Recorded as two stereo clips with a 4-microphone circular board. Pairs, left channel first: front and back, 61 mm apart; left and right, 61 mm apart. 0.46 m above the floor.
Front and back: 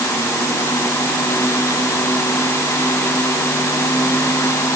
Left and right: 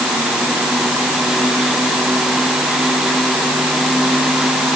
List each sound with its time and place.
Only background noise.